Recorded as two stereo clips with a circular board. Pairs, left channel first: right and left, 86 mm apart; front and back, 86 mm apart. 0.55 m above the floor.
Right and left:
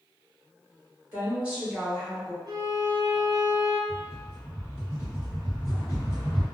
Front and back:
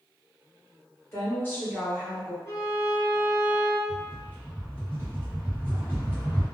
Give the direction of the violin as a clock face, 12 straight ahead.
10 o'clock.